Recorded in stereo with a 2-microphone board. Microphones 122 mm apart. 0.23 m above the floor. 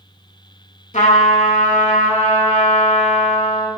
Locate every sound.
0.9 s a trumpet: 75° left (ahead or behind), 0.5 m